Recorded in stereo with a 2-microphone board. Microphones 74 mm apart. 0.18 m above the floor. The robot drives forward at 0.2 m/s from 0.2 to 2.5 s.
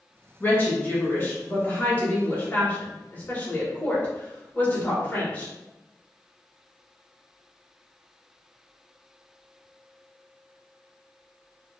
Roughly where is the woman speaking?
Left.